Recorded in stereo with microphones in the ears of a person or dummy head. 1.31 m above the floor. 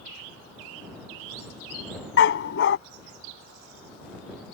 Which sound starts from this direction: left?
A dog barking, at 2.2 s.